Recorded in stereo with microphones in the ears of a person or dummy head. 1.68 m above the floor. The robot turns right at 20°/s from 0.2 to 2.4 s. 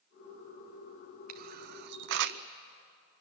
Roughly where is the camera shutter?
Right.